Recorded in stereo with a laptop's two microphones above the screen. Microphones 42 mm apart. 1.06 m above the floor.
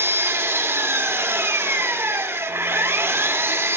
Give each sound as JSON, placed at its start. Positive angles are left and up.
{"t": 0.0, "sound": "an engine running", "side_deg": -70, "distance_m": 1.6}